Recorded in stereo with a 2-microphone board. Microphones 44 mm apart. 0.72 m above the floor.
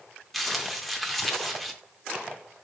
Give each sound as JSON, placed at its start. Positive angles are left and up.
{"t": 0.3, "sound": "crumpling", "side_deg": 0, "distance_m": 0.7}